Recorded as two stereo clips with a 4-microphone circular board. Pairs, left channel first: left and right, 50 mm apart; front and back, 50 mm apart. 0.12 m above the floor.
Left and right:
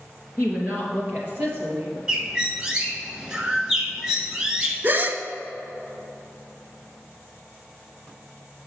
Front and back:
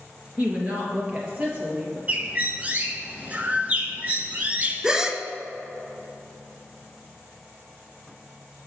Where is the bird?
155° right, 0.9 m.